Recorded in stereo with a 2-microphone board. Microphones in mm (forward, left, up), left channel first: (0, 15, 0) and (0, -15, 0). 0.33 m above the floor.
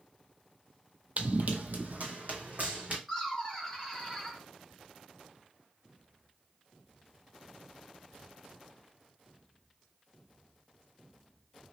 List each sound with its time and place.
1.2 s running footsteps: 60° right (ahead or behind), 0.6 m; by 3.0 s 70° right (ahead or behind), 1.3 m
3.1 s laughter: centre (ahead or behind), 0.8 m